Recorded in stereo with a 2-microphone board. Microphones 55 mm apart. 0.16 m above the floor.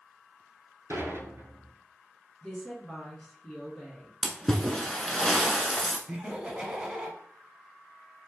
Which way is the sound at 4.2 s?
5° left (ahead or behind).